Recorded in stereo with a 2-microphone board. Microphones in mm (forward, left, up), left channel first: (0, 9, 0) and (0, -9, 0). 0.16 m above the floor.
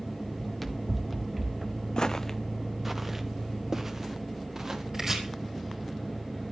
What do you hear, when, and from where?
0.4 s running footsteps: 10° left (ahead or behind), 2 m; by 1.8 s 20° right (ahead or behind), 2 m
2.0 s footsteps: 45° left (ahead or behind), 0.7 m; by 4.8 s 30° right (ahead or behind), 3.5 m
4.9 s chopping: 30° right (ahead or behind), 4 m